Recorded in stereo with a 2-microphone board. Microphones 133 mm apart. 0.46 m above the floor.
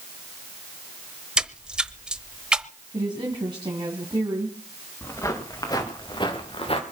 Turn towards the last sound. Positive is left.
turn(degrees=50)  # may be behind; listen again after turning